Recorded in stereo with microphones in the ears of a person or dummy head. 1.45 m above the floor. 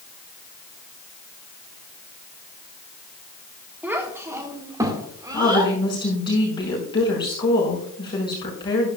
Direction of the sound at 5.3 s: 20° left (ahead or behind).